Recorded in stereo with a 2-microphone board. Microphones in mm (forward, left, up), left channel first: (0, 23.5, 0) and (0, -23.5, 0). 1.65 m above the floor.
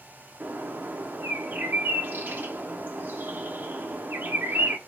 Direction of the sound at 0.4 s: 45° right (ahead or behind).